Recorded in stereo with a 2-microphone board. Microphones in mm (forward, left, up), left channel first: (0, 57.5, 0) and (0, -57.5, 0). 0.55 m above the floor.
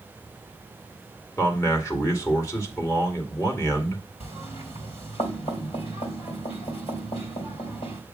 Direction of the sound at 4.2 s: 60° left (ahead or behind).